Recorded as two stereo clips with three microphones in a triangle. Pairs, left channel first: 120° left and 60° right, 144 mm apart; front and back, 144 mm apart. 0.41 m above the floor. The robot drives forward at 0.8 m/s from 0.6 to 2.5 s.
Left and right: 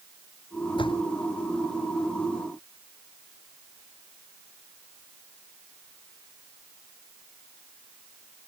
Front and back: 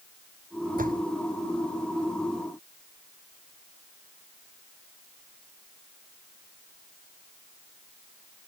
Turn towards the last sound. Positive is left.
turn(degrees=175)